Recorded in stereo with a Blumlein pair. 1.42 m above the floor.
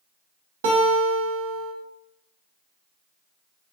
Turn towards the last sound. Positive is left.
turn(degrees=-60)